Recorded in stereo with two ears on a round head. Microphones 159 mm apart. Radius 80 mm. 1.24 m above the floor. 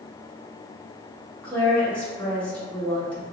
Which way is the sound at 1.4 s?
5° left (ahead or behind).